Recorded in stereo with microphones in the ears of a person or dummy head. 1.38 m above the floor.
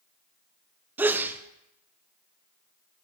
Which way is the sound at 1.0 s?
5° right (ahead or behind).